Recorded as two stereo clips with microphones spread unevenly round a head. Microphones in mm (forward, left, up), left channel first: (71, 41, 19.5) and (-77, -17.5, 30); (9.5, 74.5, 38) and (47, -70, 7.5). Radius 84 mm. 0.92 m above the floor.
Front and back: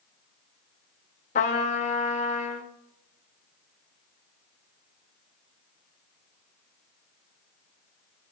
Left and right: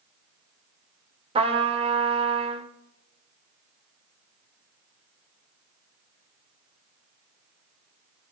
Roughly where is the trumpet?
Ahead right.